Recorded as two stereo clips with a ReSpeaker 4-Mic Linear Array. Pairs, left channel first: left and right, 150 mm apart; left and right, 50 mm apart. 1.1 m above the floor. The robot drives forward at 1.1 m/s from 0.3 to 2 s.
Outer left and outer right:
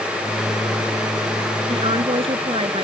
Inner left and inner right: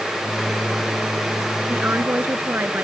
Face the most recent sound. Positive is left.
turn(degrees=-40)  # may be behind; listen again after turning